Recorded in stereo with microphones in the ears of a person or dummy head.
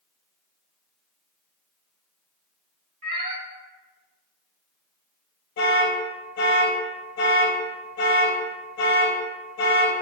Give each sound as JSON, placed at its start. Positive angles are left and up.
{"t": 3.0, "sound": "a cat meowing", "side_deg": -40, "distance_m": 1.8}
{"t": 5.6, "sound": "an alarm", "side_deg": 55, "distance_m": 0.8}